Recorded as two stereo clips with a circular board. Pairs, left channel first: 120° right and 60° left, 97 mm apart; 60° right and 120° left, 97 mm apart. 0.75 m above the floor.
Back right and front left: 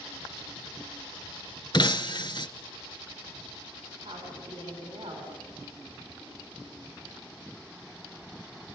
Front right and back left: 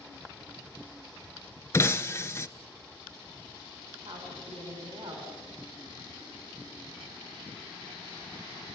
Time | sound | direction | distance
1.7 | breaking glass | 115° right | 1.0 m
4.0 | a woman speaking | 100° left | 6.5 m